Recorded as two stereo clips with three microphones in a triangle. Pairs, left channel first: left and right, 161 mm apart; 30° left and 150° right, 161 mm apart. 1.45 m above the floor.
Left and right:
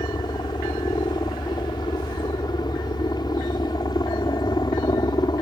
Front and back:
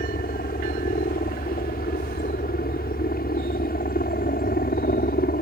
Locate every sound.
0.0 s a helicopter: 30° left